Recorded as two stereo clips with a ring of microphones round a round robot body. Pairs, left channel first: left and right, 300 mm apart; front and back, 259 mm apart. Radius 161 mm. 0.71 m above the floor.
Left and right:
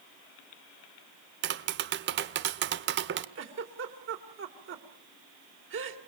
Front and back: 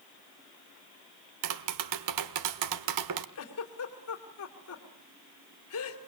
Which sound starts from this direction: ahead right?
A giggle, at 3.4 s.